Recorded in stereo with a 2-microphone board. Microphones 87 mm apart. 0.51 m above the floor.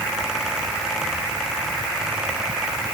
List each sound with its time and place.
Only background noise.